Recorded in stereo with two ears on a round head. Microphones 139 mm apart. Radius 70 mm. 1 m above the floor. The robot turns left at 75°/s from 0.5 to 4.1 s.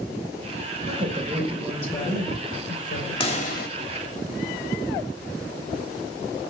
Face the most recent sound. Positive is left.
turn(degrees=80)